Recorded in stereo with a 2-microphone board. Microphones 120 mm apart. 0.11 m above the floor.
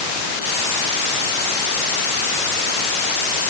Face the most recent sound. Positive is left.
No sound to turn to.